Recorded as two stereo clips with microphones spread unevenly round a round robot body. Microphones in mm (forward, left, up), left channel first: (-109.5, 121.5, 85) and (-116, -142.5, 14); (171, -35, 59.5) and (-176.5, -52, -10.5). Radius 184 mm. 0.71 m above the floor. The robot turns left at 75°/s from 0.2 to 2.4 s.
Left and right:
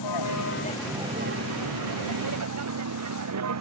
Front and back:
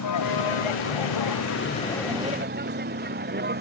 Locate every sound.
0.0 s a vehicle: 50° left; by 3.6 s 115° right